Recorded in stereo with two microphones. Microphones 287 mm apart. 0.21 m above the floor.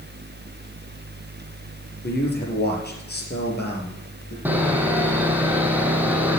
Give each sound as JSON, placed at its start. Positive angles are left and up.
{"t": 2.0, "sound": "a man speaking", "side_deg": 35, "distance_m": 5.0}
{"t": 4.5, "sound": "sawing", "side_deg": -5, "distance_m": 2.5}